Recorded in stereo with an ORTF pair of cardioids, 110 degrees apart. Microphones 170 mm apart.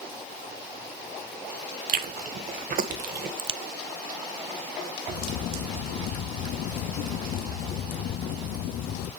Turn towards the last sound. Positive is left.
turn(degrees=65)